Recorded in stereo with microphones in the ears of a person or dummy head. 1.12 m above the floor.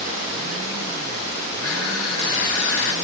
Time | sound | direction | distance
1.6 | crushing | 85° left | 2 m